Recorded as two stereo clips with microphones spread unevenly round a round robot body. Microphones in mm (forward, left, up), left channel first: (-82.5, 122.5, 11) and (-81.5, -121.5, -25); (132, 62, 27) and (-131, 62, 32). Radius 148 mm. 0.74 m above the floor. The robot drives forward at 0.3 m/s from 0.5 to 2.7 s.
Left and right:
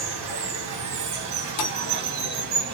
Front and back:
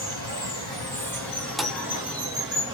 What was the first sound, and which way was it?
Running water, 75° right.